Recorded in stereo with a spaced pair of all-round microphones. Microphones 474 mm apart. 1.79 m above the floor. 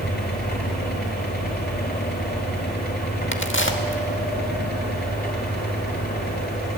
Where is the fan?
20° left (ahead or behind), 3.5 m.